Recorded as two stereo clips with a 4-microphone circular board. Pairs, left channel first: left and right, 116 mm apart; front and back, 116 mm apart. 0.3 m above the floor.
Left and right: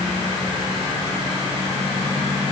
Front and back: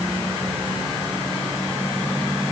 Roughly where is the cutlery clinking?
No cutlery clinking in this recording.